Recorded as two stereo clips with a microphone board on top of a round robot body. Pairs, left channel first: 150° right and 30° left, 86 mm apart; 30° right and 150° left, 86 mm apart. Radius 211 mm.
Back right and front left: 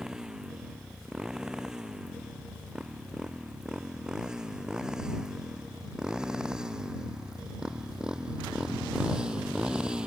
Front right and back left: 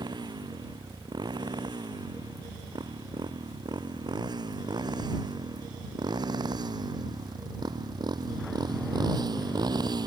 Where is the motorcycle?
115° left; by 10.1 s 110° left.